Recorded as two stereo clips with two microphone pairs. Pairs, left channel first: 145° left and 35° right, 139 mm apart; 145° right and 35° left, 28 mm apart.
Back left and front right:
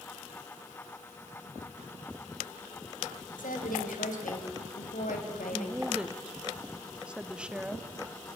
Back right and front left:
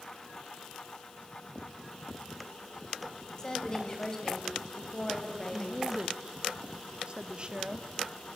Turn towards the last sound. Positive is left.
turn(degrees=40)